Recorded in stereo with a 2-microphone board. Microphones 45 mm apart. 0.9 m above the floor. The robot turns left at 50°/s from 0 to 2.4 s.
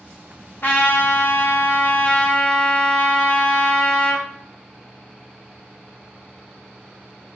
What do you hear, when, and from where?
0.6 s a trumpet: 115° left, 0.6 m; by 4.3 s 25° left, 0.6 m